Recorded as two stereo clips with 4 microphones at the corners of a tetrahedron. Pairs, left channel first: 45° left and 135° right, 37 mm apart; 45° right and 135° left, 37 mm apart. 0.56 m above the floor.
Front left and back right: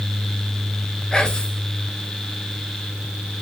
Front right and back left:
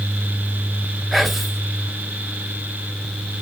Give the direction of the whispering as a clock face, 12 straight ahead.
10 o'clock.